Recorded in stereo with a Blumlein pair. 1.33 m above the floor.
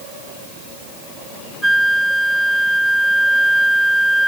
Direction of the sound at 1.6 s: 5° right.